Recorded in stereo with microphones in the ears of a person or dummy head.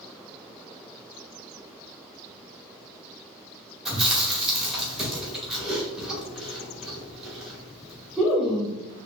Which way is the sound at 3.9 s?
Centre (ahead or behind).